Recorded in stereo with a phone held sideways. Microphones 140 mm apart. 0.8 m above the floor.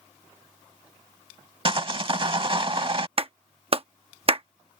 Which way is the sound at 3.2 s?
40° right (ahead or behind).